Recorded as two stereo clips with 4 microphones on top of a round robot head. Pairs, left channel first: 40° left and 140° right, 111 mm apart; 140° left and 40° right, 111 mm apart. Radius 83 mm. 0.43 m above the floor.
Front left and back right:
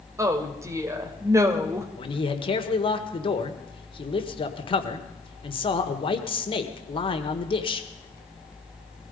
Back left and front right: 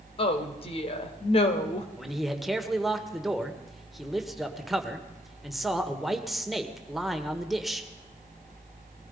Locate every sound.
0.2 s a woman speaking: 160° left, 2 m
2.0 s a man speaking: 50° left, 1.8 m